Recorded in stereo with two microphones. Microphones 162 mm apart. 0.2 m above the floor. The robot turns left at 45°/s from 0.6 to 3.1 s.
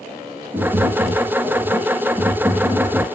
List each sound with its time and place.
0.5 s tapping: 20° right (ahead or behind), 1.2 m; by 3.0 s 5° left (ahead or behind), 1.2 m